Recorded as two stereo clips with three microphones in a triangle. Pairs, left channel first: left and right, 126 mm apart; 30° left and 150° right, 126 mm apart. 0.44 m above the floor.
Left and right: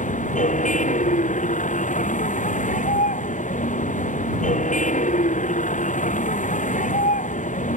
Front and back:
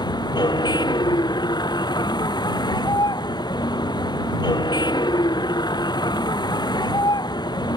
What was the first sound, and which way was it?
A vehicle, 85° left.